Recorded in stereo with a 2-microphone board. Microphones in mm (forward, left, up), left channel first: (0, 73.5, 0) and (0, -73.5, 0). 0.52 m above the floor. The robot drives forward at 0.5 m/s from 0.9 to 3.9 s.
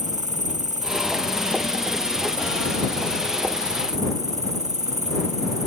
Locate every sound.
0.0 s an insect: 55° right (ahead or behind); by 5.7 s 50° right (ahead or behind)